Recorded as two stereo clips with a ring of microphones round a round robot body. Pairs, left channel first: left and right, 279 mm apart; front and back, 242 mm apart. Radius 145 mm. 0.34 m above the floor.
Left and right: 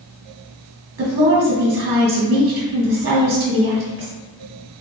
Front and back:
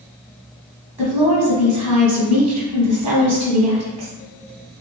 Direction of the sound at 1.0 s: 120° right.